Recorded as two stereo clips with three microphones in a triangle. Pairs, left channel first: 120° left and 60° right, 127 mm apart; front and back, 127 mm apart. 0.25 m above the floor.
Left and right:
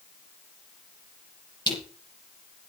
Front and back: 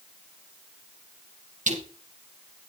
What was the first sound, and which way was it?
Crushing, 175° left.